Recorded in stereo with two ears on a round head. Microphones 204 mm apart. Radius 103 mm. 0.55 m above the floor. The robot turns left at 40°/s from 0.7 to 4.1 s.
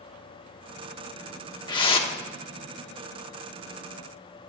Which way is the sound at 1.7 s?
20° left (ahead or behind).